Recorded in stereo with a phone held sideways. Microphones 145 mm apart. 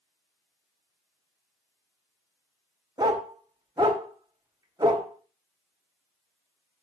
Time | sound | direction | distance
3.0 | a dog barking | 25° right (ahead or behind) | 1.1 m